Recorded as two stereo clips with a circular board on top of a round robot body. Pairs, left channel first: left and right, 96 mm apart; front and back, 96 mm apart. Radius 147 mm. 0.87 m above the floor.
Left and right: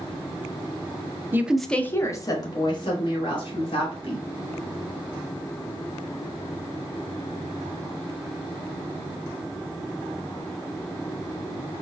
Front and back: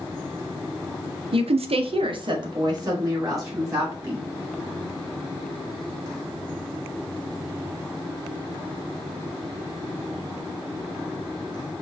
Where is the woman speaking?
160° right, 0.6 m; by 4.2 s 120° left, 2.5 m.